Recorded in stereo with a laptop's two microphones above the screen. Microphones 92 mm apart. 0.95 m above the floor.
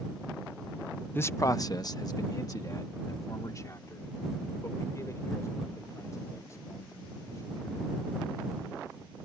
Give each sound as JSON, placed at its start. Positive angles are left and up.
{"t": 1.1, "sound": "a man speaking", "side_deg": 25}